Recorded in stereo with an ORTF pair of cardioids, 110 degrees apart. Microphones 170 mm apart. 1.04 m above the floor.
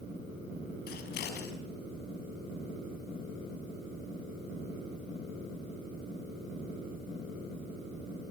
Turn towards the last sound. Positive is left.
turn(degrees=70)